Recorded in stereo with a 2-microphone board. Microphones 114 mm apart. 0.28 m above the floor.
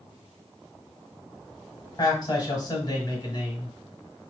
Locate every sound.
2.0 s a man speaking: 35° left (ahead or behind), 1.5 m